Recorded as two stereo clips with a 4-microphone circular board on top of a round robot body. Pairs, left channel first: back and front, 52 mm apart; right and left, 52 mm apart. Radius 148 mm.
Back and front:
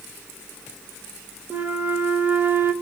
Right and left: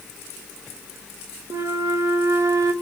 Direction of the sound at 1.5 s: 60° left.